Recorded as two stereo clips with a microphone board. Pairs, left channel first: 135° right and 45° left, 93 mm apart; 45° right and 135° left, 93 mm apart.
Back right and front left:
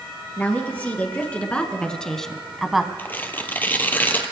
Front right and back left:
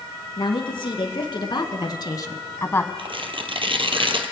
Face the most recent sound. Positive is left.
turn(degrees=155)